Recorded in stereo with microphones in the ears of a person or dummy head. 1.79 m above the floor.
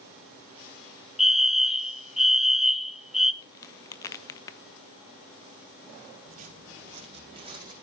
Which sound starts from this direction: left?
A crack, at 3.4 s.